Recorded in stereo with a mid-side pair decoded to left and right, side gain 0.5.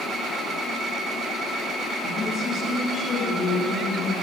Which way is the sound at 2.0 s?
45° left.